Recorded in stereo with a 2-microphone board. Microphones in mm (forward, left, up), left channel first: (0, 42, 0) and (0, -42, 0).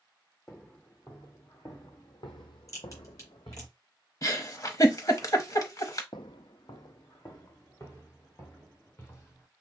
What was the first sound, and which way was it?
Footsteps, 30° left (ahead or behind).